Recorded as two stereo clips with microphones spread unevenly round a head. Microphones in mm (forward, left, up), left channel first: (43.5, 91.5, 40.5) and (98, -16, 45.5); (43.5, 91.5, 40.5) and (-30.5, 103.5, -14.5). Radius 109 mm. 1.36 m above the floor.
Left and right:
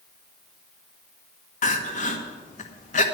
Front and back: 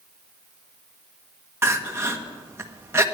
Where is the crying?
110° left, 1.4 m.